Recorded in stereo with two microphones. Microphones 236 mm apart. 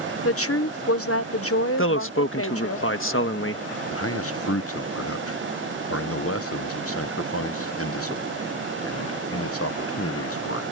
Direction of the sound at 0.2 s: 70° left (ahead or behind).